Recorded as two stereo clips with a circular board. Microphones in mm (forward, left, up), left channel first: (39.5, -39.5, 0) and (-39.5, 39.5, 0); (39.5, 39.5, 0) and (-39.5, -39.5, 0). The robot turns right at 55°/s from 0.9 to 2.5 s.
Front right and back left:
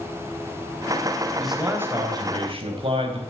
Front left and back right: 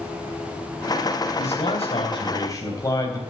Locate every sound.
1.4 s a man speaking: 40° left, 3.5 m; by 3.2 s 105° left, 3.5 m